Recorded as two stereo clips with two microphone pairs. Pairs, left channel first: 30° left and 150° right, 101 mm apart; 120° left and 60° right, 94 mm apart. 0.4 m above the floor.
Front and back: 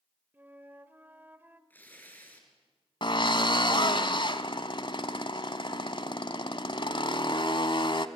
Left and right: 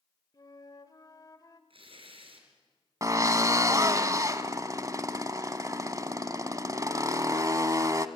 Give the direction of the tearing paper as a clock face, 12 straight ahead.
1 o'clock.